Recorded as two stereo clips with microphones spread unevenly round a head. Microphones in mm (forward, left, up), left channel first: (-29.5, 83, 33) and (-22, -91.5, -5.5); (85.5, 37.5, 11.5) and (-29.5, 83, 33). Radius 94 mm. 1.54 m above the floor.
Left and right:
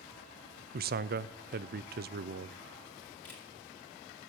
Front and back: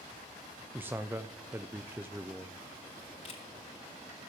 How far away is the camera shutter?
About 2.5 m.